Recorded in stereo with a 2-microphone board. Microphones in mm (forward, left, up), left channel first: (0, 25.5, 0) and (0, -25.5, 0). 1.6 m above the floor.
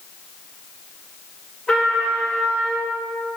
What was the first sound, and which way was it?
A trumpet, 5° left (ahead or behind).